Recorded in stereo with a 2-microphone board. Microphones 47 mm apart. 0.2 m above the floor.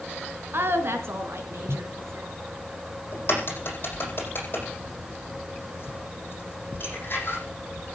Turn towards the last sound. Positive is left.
turn(degrees=45)  # may be behind; listen again after turning